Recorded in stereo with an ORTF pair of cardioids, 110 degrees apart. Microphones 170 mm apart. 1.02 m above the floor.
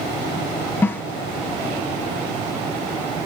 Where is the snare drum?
15° left, 0.9 m.